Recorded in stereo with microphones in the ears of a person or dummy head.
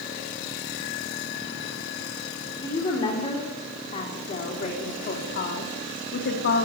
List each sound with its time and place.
2.6 s a woman speaking: 25° left (ahead or behind), 4 m; by 6.7 s 65° left (ahead or behind), 2.5 m